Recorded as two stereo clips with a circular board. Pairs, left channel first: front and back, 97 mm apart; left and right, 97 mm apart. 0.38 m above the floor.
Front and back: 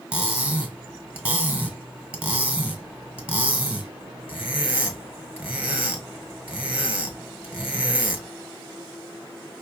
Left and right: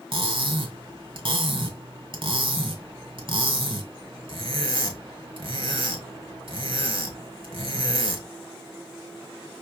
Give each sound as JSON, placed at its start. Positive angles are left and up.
{"t": 0.1, "sound": "cutlery clinking", "azimuth_deg": -105, "distance_m": 1.4}